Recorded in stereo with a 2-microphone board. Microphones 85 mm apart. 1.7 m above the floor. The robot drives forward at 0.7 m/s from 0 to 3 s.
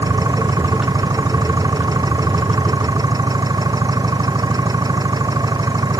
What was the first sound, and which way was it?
An engine running, 50° right (ahead or behind).